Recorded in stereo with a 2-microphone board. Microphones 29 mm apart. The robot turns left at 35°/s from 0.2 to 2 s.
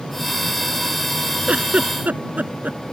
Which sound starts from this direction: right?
A giggle, at 1.5 s.